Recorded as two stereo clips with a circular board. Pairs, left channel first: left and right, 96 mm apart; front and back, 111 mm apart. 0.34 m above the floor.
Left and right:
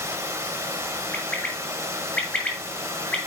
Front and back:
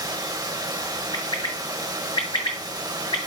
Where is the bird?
15° left, 1.7 m.